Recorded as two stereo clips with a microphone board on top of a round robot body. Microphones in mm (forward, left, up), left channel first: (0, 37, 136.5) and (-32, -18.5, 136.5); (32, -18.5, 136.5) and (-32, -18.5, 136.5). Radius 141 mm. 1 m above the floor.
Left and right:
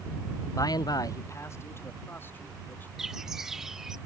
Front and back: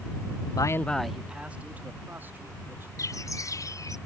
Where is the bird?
35° right.